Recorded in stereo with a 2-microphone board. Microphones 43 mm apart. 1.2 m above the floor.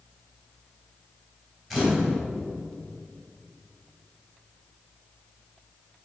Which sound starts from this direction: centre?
A camera shutter, at 1.7 s.